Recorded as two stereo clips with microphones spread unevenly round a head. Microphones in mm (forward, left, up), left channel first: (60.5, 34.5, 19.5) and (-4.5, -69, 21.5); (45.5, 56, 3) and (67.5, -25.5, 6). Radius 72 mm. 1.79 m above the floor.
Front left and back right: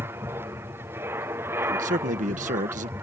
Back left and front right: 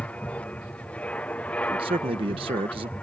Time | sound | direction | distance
0.0 | an aircraft | 175° left | ?
1.6 | a man speaking | 110° right | ?